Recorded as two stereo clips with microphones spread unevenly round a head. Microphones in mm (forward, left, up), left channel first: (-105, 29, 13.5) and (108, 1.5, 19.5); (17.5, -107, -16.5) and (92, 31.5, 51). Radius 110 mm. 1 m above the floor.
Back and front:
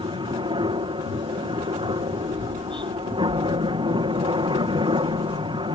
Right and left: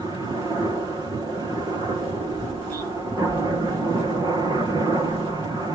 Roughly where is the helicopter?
Ahead right.